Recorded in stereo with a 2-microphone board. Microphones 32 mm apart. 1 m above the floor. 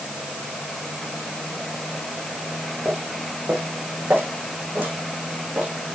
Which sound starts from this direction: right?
Footsteps, at 2.9 s.